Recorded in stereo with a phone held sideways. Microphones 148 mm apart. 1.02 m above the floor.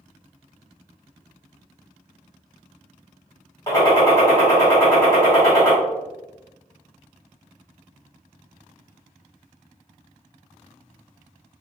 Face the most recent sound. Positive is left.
turn(degrees=20)  # may be behind; listen again after turning